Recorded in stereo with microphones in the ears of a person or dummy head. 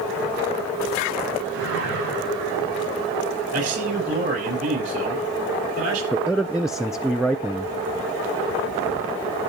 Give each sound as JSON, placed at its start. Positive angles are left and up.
{"t": 1.5, "sound": "a whoosh", "side_deg": -80, "distance_m": 7.0}
{"t": 3.5, "sound": "a man speaking", "side_deg": -50, "distance_m": 9.0}
{"t": 6.1, "sound": "a man speaking", "side_deg": 0, "distance_m": 0.7}